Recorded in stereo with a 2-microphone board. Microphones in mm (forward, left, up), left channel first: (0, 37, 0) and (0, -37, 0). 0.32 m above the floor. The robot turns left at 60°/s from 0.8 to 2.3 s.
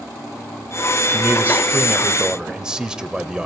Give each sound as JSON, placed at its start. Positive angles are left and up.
{"t": 1.1, "sound": "a man speaking", "side_deg": -30, "distance_m": 0.9}